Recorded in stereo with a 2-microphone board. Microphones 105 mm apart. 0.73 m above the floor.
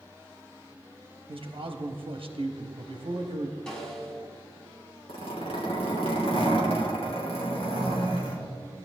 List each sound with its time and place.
1.3 s a man speaking: 55° right (ahead or behind), 0.9 m
3.7 s a snare drum: 5° left (ahead or behind), 4 m
5.1 s a zipper: 70° left (ahead or behind), 3.5 m